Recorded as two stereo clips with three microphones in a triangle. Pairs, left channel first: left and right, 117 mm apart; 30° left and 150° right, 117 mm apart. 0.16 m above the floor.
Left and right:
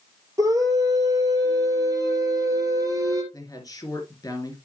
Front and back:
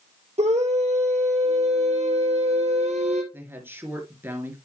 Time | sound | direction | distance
0.4 | a scream | 150° right | 3 m
3.3 | a woman speaking | 145° left | 3 m